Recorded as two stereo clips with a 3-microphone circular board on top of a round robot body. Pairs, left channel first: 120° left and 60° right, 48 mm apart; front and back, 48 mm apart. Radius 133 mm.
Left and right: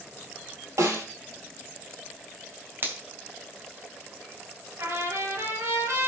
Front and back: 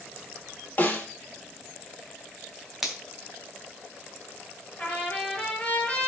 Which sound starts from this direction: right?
A finger snap, at 2.8 s.